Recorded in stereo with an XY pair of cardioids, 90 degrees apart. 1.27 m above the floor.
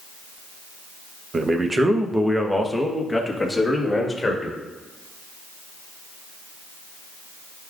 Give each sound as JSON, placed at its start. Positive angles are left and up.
{"t": 1.3, "sound": "a man speaking", "azimuth_deg": -35, "distance_m": 1.1}